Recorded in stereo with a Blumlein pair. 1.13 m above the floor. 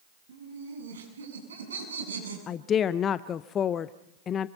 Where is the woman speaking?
25° left, 0.6 m.